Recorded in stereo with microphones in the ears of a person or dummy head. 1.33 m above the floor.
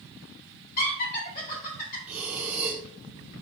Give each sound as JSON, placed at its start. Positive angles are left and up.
{"t": 0.8, "sound": "laughter", "side_deg": 45, "distance_m": 2.5}
{"t": 2.1, "sound": "breathing", "side_deg": -10, "distance_m": 0.8}